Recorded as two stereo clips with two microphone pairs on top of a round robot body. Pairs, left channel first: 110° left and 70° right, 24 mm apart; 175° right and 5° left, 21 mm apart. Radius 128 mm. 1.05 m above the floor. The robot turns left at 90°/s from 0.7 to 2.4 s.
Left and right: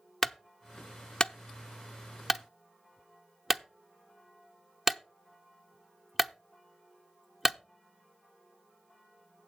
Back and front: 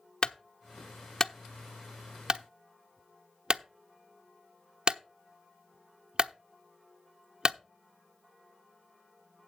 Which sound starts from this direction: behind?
A clunk, at 0.2 s.